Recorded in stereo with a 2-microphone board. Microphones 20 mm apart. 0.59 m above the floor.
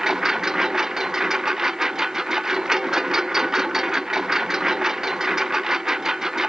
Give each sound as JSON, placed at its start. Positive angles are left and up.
{"t": 0.0, "sound": "a lawn mower", "side_deg": -15}